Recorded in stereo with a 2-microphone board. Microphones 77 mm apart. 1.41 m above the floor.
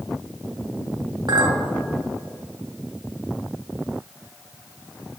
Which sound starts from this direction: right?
A clink, at 1.3 s.